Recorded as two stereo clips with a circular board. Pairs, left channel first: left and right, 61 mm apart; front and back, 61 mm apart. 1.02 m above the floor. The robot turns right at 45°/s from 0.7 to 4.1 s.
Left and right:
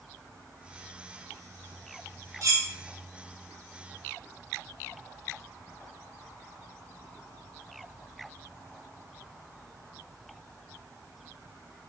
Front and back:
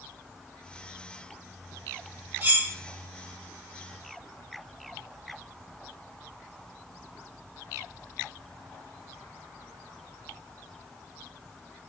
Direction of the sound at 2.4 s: 125° right.